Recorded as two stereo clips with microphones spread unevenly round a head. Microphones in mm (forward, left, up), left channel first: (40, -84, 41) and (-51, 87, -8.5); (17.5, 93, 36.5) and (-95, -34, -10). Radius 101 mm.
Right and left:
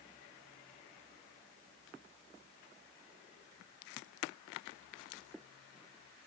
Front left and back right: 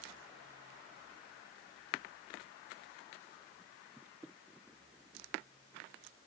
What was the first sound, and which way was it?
Only background noise.